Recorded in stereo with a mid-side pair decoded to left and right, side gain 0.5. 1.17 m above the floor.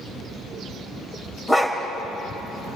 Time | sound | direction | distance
1.5 | a dog barking | 10° left | 2.5 m